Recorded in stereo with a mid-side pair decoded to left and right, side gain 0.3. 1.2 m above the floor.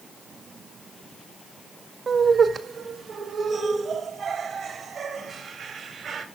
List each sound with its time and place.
2.1 s laughter: 60° right, 1.8 m; by 6.2 s 70° right, 4.5 m